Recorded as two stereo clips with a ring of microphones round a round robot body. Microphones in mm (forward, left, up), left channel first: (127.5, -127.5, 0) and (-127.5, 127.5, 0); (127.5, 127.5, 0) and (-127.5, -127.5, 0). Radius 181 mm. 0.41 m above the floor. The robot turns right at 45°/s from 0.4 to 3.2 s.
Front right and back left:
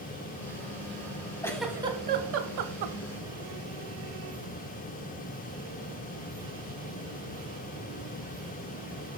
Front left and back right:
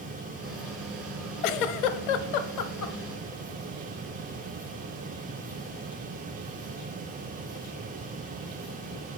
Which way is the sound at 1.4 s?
35° left.